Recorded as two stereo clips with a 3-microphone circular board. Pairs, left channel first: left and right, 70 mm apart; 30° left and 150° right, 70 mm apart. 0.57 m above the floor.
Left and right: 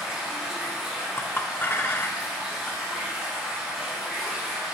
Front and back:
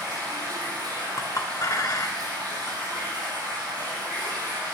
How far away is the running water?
About 4 m.